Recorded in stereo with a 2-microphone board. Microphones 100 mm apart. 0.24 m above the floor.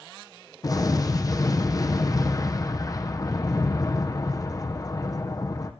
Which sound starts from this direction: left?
An explosion, at 0.6 s.